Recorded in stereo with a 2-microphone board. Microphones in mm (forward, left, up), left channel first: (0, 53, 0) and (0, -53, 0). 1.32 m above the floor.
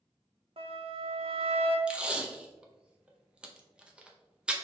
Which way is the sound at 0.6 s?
65° right (ahead or behind).